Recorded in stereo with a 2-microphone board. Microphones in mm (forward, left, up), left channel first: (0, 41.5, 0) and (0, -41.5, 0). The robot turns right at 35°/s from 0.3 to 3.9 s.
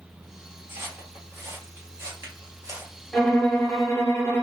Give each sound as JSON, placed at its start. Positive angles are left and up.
{"t": 0.7, "sound": "footsteps", "side_deg": -30, "distance_m": 2.0}
{"t": 3.1, "sound": "a violin", "side_deg": 5, "distance_m": 1.0}